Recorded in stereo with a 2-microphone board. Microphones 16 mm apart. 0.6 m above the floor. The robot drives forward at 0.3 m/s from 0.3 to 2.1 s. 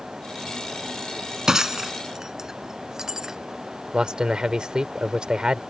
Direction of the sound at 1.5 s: 30° right (ahead or behind).